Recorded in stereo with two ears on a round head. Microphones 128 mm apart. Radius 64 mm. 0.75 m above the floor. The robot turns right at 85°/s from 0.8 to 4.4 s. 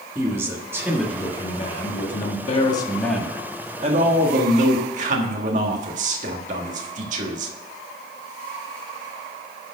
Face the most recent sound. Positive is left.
turn(degrees=-75)